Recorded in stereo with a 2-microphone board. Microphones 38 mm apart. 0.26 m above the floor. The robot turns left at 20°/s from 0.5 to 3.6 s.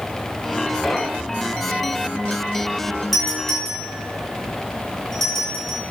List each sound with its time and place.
0.8 s knocking: 5° left (ahead or behind), 1.6 m; by 1.4 s 10° left (ahead or behind), 1.6 m
3.1 s a doorbell: 5° left (ahead or behind), 5.5 m; by 5.8 s 10° left (ahead or behind), 5.5 m